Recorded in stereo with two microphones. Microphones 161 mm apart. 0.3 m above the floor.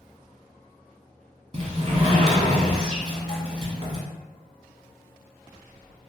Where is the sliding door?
40° right (ahead or behind), 0.9 m.